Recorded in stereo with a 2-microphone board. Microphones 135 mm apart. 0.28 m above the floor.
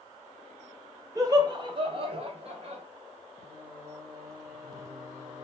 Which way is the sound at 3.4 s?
25° right (ahead or behind).